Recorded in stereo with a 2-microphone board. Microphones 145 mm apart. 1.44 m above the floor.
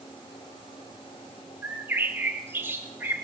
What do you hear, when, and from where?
1.6 s a bird: 15° right (ahead or behind), 1.3 m